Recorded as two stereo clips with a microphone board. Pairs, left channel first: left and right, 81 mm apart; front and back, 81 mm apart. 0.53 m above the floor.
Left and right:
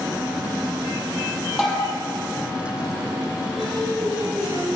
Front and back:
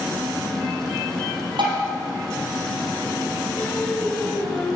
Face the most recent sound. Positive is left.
turn(degrees=-75)